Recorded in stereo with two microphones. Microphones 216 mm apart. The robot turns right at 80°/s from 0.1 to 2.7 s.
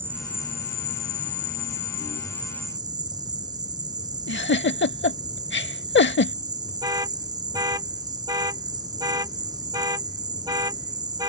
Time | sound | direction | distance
0.0 | an insect | 10° right | ?
4.3 | a giggle | 60° left (ahead or behind) | ?
6.8 | an alarm | 15° right (ahead or behind) | ?